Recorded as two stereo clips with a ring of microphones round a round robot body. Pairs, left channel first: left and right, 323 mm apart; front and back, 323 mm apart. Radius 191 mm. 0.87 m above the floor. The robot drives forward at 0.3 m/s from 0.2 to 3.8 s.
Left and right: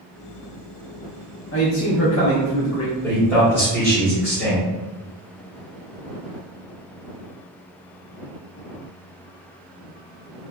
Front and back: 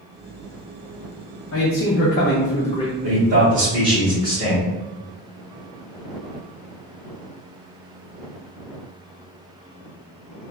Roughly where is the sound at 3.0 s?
Behind.